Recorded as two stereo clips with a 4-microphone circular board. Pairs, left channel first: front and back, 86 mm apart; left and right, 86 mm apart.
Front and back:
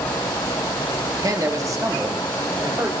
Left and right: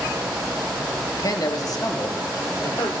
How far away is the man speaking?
About 1.5 m.